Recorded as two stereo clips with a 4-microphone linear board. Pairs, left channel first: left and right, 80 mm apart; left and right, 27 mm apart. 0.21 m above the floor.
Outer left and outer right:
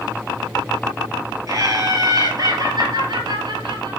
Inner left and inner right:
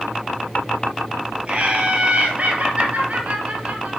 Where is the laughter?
45° right (ahead or behind), 4.5 m; by 4.0 s 60° right (ahead or behind), 4 m.